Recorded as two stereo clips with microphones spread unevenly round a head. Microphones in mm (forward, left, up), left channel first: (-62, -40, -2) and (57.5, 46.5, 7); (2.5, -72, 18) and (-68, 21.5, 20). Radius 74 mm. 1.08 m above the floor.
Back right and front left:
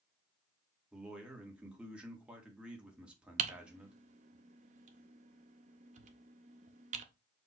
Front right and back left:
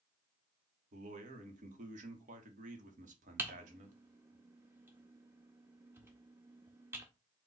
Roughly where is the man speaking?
Behind left.